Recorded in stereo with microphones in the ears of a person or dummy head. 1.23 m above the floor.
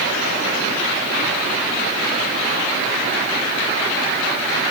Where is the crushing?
I don't hear crushing.